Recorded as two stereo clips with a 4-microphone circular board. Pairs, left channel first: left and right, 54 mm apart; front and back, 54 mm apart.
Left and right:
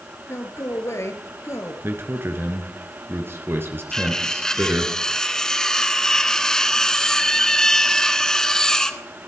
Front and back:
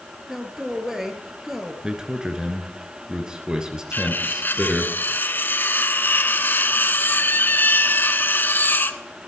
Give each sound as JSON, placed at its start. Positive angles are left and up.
{"t": 0.3, "sound": "a man speaking", "azimuth_deg": 95, "distance_m": 3.0}
{"t": 1.8, "sound": "a man speaking", "azimuth_deg": -110, "distance_m": 2.5}
{"t": 3.9, "sound": "cutlery clinking", "azimuth_deg": 15, "distance_m": 0.8}